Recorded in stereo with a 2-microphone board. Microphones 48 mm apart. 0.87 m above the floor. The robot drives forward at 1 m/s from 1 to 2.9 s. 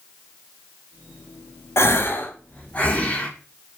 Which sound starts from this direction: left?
A gasp, at 1.8 s.